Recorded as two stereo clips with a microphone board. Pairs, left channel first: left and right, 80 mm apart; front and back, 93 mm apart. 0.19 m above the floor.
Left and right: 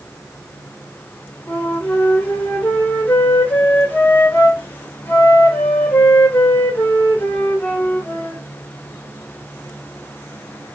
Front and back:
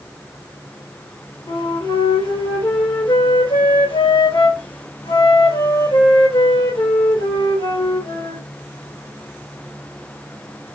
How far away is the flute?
About 1.5 m.